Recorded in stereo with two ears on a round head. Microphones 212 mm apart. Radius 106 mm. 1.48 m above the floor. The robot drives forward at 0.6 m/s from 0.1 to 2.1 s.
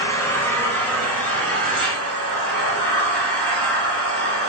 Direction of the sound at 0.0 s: 10° left (ahead or behind).